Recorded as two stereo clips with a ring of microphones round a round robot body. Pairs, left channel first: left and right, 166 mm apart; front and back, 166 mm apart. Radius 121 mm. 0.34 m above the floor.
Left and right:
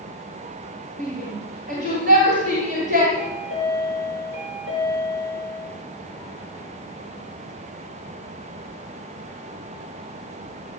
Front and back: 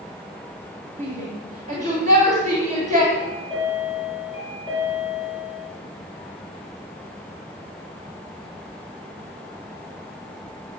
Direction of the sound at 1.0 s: 135° right.